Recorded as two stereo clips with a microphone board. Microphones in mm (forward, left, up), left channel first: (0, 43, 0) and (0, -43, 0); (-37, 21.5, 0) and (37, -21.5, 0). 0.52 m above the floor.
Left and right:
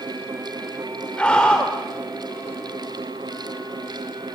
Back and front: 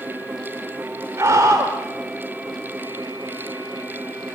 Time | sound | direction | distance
1.2 | a scream | 15° left | 1.4 m